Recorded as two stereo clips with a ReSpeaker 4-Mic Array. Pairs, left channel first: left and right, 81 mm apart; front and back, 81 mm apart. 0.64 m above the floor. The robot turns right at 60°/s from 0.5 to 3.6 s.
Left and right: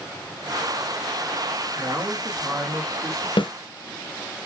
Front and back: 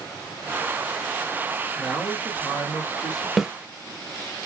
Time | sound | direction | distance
1.8 | a man speaking | 80° right | 1.7 m
3.4 | a snare drum | 90° left | 0.6 m